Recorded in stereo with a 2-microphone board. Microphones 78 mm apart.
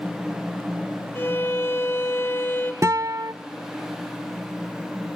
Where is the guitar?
40° right (ahead or behind), 0.6 m.